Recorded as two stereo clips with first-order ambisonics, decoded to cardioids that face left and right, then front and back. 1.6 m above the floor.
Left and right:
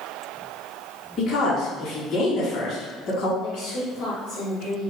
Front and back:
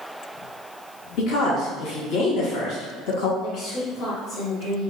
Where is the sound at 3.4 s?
50° left, 1.4 m.